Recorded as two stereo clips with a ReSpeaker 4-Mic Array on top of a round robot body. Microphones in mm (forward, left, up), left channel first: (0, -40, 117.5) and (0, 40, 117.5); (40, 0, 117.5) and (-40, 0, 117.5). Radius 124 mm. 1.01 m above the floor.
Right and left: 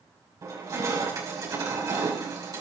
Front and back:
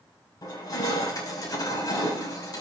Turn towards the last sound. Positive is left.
turn(degrees=45)